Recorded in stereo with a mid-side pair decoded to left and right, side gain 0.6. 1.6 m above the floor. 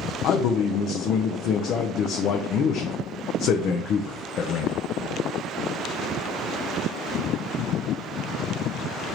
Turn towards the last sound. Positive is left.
turn(degrees=55)